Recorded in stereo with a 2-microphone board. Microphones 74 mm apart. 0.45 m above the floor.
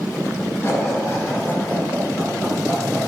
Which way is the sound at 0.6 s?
35° left (ahead or behind).